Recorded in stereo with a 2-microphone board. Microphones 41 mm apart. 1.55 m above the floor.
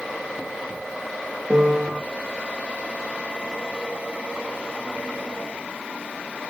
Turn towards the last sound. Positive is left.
turn(degrees=-35)  # may be behind; listen again after turning